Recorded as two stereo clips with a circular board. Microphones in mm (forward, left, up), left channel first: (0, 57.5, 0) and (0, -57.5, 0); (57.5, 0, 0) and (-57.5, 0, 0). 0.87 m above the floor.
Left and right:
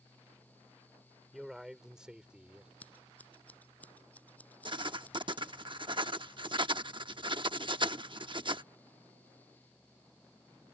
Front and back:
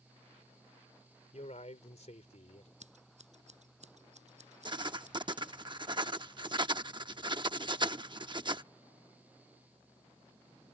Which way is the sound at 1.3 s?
Straight ahead.